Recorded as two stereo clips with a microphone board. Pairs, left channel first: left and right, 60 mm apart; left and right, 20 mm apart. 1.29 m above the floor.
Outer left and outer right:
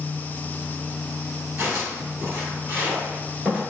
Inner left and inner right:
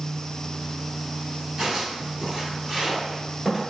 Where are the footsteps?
40° right (ahead or behind), 1.8 m; by 3.6 s 20° right (ahead or behind), 1.3 m.